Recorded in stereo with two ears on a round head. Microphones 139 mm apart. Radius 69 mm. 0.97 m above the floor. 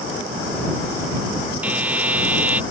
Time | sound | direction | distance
1.6 | a buzzer | 10° right (ahead or behind) | ?